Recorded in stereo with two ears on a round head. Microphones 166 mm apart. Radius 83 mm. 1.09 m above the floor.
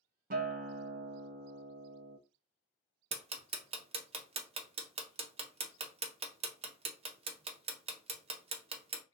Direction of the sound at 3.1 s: 35° right (ahead or behind).